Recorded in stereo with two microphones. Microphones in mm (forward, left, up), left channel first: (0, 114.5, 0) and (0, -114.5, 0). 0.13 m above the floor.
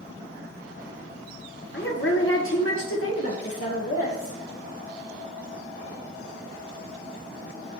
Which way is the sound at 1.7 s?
50° left (ahead or behind).